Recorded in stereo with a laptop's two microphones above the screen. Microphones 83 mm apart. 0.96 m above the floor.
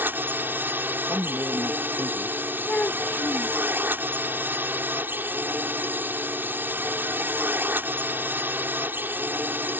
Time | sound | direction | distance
0.0 | a drone | 25° right (ahead or behind) | ?
1.1 | a man speaking | 40° right (ahead or behind) | ?
2.7 | a child speaking | 15° left (ahead or behind) | ?